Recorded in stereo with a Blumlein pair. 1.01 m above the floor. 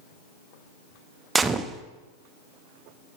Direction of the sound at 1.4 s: 15° right.